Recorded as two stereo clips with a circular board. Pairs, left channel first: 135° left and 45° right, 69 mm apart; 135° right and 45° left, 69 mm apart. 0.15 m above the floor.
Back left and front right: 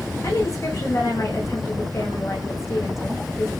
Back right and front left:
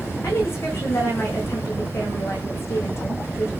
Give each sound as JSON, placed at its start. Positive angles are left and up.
{"t": 0.2, "sound": "a woman speaking", "azimuth_deg": 175, "distance_m": 9.0}